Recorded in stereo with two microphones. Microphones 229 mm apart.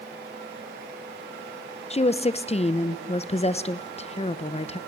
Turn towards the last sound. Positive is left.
turn(degrees=30)  # may be behind; listen again after turning